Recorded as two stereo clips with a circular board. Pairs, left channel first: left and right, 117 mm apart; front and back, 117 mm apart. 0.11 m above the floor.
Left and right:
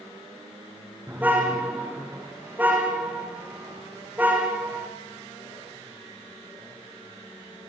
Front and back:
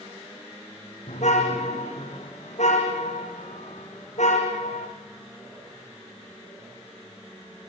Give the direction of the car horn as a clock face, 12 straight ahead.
1 o'clock.